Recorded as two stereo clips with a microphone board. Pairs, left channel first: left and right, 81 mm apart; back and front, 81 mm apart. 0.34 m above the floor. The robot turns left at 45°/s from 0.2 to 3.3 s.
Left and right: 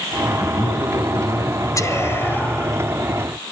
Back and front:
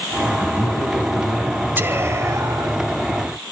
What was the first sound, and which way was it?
A man speaking, 120° left.